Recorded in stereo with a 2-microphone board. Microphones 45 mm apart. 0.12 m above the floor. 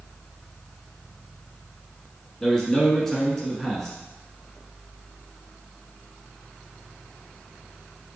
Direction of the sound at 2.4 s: 10° left (ahead or behind).